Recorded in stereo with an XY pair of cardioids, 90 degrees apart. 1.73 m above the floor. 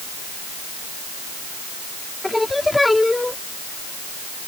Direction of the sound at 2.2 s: 15° left.